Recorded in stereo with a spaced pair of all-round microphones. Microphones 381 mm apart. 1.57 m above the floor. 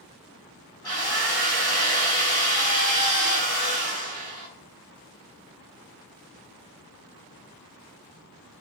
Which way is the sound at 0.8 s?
75° left (ahead or behind).